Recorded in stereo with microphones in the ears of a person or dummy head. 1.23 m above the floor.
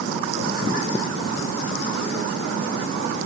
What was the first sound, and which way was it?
Only background noise.